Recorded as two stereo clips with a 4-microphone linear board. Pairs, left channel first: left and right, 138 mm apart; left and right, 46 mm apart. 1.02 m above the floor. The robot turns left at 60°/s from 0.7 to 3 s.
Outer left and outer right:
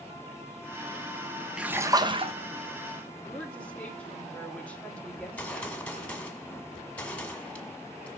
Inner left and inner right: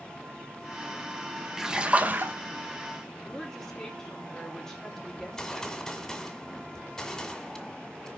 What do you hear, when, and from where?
1.6 s a splash: 5° right, 0.8 m; by 2.4 s 55° right, 0.8 m
3.2 s a woman speaking: 10° left (ahead or behind), 2.5 m
5.2 s a gunshot: 10° left (ahead or behind), 1.8 m